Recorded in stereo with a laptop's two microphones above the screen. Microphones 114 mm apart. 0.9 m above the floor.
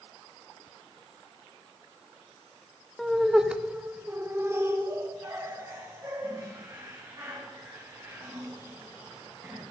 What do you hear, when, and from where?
3.0 s laughter: centre (ahead or behind), 0.8 m; by 9.6 s 25° right (ahead or behind), 3 m